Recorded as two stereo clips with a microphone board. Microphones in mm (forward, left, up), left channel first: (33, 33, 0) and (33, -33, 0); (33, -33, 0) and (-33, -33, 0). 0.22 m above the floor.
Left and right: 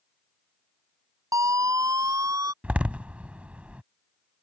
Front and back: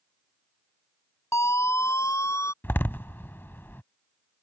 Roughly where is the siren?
Ahead right.